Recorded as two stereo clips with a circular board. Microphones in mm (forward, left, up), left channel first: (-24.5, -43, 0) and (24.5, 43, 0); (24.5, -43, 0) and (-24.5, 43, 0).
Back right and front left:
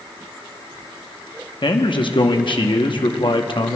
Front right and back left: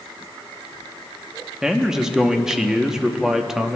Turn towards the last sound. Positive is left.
turn(degrees=-155)